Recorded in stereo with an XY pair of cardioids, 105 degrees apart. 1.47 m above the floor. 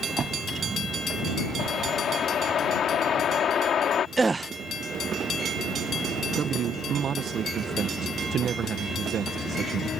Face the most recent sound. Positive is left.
turn(degrees=-55)